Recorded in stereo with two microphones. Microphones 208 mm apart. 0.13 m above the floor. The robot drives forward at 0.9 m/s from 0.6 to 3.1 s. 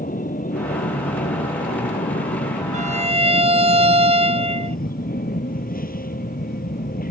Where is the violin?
40° right (ahead or behind); by 4.8 s 30° right (ahead or behind).